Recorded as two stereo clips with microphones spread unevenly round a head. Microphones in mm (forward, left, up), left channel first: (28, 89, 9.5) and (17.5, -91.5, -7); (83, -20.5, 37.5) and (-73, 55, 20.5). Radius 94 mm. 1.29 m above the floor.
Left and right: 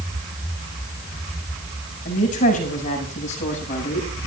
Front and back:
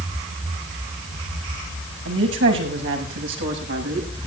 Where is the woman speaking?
140° left, 7 m; by 4.3 s 145° left, 7.5 m.